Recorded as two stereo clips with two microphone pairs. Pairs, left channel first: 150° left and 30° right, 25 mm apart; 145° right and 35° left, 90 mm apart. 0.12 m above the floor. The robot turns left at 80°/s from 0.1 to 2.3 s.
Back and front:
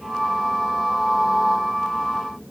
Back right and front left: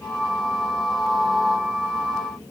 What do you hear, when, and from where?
Only background noise.